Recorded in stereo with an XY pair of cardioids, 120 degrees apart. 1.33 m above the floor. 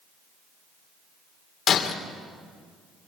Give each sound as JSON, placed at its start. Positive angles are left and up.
{"t": 1.7, "sound": "breaking glass", "azimuth_deg": 45, "distance_m": 3.0}